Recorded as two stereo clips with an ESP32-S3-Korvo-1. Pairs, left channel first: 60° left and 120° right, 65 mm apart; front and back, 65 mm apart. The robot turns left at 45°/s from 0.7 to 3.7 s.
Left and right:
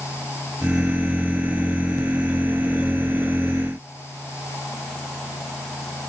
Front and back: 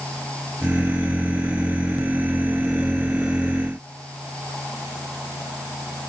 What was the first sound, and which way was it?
Only background noise.